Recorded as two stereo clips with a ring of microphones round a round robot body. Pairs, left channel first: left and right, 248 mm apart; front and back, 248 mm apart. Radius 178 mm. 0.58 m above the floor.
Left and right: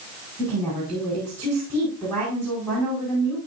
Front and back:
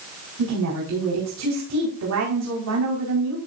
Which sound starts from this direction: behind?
A woman speaking, at 0.4 s.